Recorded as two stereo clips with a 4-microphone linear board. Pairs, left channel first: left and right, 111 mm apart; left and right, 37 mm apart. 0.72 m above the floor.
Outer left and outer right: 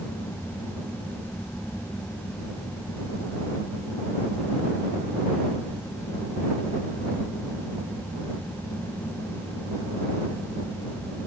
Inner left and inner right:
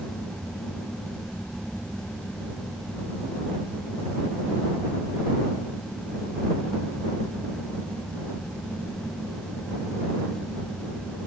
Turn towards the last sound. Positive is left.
No sound to turn to.